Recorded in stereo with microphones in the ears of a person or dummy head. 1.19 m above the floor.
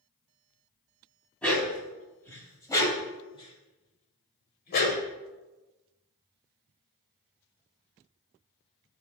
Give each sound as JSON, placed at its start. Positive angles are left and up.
{"t": 1.4, "sound": "a dog barking", "side_deg": 5, "distance_m": 2.0}